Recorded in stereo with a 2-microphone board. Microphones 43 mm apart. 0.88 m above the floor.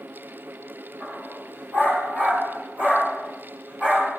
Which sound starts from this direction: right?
A dog barking, at 1.0 s.